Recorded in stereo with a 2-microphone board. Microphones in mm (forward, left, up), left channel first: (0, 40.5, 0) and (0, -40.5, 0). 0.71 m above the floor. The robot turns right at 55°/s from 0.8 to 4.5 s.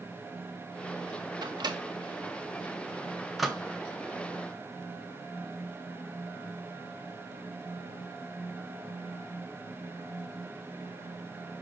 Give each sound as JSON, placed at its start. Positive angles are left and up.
{"t": 1.4, "sound": "a microwave", "side_deg": -60, "distance_m": 0.5}